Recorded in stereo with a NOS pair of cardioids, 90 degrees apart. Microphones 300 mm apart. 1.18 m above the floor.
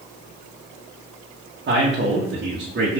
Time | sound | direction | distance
1.7 | a man speaking | 35° right | 1.2 m